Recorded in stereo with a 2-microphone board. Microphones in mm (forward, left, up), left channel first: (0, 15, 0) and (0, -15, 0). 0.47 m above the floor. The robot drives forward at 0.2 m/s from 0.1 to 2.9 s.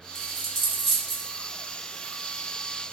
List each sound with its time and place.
0.1 s a dropped coin: 10° left (ahead or behind), 1.6 m